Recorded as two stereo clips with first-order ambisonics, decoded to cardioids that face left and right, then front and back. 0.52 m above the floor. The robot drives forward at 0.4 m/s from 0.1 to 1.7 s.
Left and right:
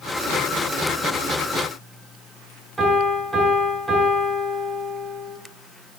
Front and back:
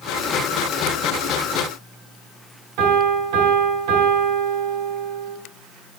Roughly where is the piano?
Behind.